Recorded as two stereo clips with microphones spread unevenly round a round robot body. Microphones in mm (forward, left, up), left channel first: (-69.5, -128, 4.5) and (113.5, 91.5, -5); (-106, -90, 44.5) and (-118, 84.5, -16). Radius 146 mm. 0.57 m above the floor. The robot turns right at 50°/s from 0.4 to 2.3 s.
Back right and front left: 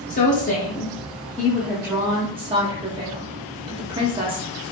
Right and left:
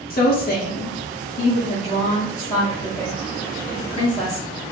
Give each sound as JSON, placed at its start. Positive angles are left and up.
{"t": 0.1, "sound": "a woman speaking", "azimuth_deg": -95, "distance_m": 0.7}